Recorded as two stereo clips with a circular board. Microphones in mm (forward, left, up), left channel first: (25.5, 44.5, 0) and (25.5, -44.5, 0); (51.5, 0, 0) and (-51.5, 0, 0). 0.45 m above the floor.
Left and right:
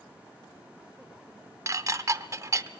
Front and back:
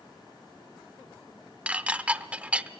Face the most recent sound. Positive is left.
turn(degrees=-110)